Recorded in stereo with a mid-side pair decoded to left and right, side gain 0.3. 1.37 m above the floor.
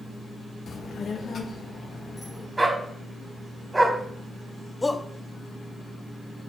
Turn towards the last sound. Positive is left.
turn(degrees=25)